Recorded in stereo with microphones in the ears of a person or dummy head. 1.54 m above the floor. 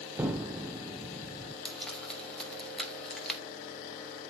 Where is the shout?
No shout in this recording.